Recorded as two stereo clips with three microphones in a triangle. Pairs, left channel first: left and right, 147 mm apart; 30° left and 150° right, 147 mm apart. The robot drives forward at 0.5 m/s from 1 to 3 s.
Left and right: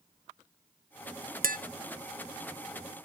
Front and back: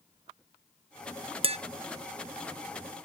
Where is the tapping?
100° right, 0.8 m; by 1.6 s 105° right, 0.8 m.